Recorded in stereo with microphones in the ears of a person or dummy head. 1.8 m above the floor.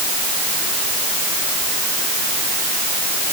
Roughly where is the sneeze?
No sneeze in this recording.